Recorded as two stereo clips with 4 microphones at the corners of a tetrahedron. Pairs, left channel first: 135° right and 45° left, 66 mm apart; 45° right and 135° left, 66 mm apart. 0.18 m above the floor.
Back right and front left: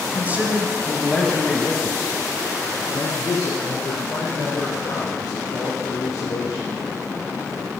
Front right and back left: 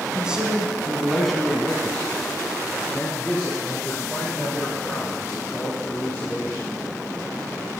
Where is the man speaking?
70° left, 1.4 m; by 6.7 s 110° right, 5.5 m.